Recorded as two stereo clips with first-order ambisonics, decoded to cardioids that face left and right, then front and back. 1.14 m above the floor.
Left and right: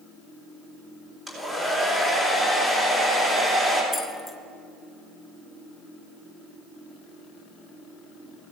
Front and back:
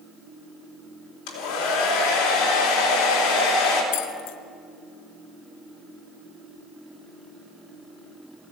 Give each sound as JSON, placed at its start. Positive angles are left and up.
{"t": 1.3, "sound": "a hair dryer", "azimuth_deg": -15, "distance_m": 3.5}
{"t": 3.9, "sound": "keys jangling", "azimuth_deg": 0, "distance_m": 0.8}